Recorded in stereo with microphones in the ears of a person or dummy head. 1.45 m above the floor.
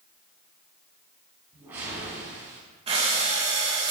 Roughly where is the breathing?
Right.